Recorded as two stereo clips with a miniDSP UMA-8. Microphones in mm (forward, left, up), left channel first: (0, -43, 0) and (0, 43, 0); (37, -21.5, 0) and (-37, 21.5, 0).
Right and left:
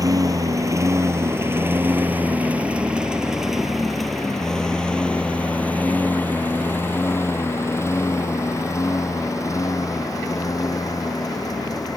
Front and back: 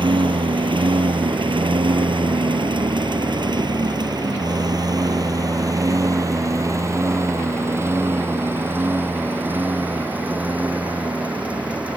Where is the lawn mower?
135° left; by 12.0 s 135° right.